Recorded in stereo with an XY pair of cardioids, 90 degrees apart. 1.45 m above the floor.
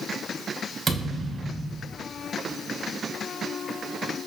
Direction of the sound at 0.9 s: 35° right.